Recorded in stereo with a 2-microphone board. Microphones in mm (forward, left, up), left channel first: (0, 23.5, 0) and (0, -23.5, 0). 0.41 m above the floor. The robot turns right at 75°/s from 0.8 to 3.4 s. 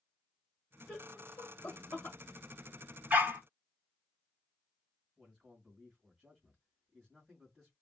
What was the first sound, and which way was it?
Laughter, 25° left (ahead or behind).